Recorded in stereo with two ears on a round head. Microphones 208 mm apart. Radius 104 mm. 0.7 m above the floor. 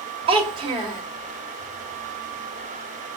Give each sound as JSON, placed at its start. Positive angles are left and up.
{"t": 0.3, "sound": "a child speaking", "side_deg": -25, "distance_m": 1.5}